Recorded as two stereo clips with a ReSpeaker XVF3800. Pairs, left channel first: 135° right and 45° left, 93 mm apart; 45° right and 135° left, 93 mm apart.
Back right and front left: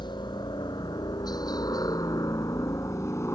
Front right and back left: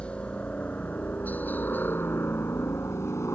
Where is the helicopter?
120° right; by 3.4 s 90° right.